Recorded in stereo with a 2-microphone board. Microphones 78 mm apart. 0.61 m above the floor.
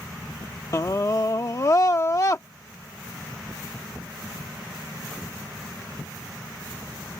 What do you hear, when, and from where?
0.7 s a scream: 45° left (ahead or behind)